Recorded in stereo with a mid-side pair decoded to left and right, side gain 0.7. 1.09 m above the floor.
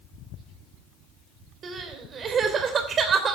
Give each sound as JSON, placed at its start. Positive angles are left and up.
{"t": 1.6, "sound": "crying", "azimuth_deg": -35, "distance_m": 3.0}